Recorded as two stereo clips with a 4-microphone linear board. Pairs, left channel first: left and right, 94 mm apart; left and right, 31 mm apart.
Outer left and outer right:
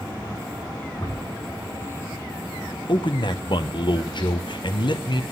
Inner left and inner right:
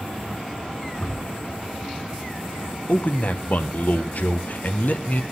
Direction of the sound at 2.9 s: 55° left (ahead or behind).